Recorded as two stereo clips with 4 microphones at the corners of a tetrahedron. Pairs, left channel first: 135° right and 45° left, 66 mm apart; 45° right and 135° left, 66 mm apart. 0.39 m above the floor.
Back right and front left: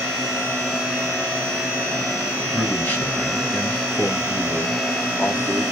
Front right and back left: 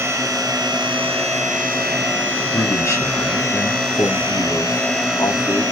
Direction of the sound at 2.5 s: 70° right.